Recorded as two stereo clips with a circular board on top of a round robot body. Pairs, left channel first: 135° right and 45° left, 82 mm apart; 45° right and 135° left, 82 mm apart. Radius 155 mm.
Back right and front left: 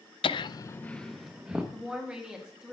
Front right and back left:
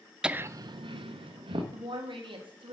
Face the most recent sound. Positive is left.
turn(degrees=125)